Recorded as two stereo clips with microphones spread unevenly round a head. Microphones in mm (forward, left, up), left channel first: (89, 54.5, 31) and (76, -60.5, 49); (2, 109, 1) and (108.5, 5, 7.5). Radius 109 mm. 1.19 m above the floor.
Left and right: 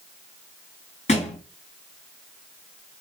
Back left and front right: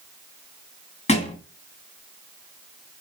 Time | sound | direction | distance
1.1 | a thud | 120° left | 1.3 m